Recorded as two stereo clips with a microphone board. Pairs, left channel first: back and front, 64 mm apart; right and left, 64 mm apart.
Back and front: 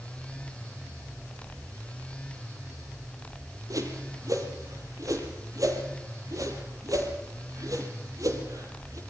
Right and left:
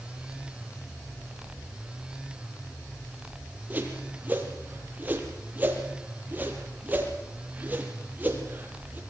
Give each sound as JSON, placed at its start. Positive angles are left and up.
{"t": 3.7, "sound": "a whoosh", "azimuth_deg": 30, "distance_m": 5.0}